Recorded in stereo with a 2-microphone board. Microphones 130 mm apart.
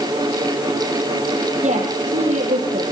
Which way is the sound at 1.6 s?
65° right (ahead or behind).